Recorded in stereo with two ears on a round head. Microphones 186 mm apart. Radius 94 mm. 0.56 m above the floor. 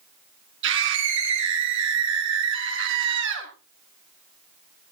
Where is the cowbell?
I don't hear a cowbell.